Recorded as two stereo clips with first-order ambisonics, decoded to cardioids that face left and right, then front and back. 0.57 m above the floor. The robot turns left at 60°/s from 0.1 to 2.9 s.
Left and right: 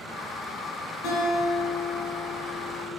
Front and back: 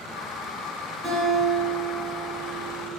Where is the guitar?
115° left, 0.9 m; by 2.9 s straight ahead, 0.9 m.